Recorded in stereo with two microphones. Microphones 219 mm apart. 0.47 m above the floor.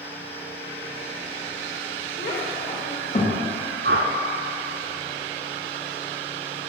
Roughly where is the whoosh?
Right.